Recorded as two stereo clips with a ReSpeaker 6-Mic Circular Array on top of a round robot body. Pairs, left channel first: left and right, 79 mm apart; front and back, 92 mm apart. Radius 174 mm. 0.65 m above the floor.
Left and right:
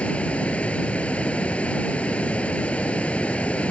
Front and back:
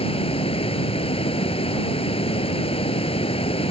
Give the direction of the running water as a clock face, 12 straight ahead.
11 o'clock.